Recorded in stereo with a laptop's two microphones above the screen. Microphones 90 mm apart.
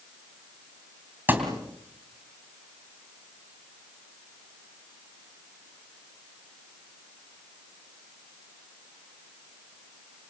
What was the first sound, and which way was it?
A thud, 20° right (ahead or behind).